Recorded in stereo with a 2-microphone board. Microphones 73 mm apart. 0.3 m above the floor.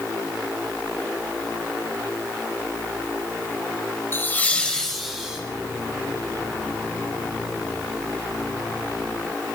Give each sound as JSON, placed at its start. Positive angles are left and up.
{"t": 4.1, "sound": "laughter", "side_deg": 30, "distance_m": 1.1}